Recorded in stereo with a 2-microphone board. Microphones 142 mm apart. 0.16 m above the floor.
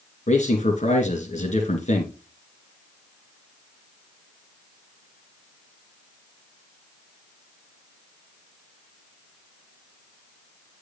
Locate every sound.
0.3 s a man speaking: 55° left (ahead or behind), 2.5 m